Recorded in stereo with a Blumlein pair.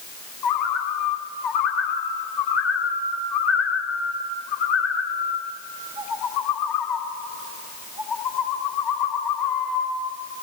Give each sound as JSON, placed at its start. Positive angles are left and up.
{"t": 0.4, "sound": "a bird", "azimuth_deg": 35, "distance_m": 2.5}